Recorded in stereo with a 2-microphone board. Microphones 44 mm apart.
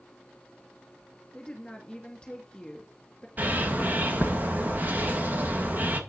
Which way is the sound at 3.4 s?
40° right (ahead or behind).